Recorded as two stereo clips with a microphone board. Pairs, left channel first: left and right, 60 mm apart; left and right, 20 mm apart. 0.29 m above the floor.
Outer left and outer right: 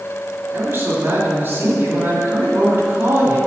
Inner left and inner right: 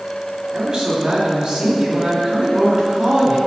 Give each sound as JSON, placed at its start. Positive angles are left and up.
{"t": 0.5, "sound": "a man speaking", "side_deg": -45, "distance_m": 2.0}